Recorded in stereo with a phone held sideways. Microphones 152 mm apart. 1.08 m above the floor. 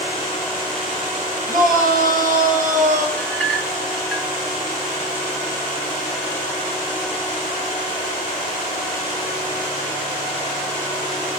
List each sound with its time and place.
1.5 s a shout: 70° right (ahead or behind), 6 m; by 3.1 s 60° right (ahead or behind), 5.5 m
3.2 s a clink: 10° left (ahead or behind), 1.2 m